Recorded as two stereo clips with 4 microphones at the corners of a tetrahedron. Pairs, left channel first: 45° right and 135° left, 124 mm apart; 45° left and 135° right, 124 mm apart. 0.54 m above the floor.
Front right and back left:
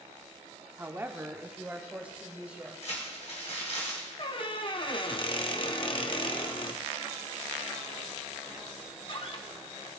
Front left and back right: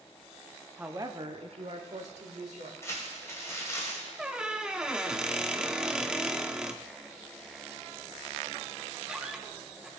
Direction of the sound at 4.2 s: 55° right.